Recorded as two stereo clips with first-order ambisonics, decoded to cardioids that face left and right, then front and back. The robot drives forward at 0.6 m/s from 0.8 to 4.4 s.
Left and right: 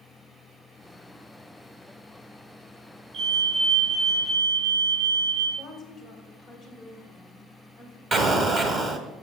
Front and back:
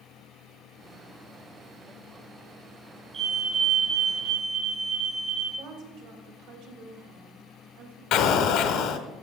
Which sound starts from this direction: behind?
A woman speaking, at 5.6 s.